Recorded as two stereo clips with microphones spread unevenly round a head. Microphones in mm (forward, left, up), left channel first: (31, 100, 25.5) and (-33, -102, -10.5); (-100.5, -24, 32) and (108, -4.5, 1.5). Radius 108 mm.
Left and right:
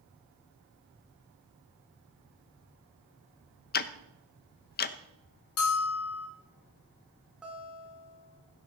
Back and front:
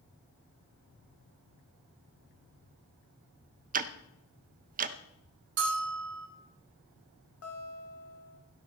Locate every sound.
3.7 s ticking: 60° left, 0.8 m
5.6 s a bell: 50° left, 4 m
7.4 s a guitar: 165° left, 3.5 m